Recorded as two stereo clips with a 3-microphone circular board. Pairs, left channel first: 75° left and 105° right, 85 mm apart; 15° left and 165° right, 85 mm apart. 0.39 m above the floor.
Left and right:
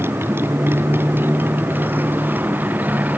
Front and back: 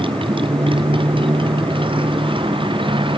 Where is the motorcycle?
165° right; by 3.2 s 175° right.